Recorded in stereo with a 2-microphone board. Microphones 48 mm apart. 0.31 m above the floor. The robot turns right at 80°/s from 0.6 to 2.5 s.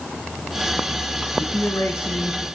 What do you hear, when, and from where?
1.3 s a man speaking: 60° left, 3 m; by 2.5 s 150° left, 3 m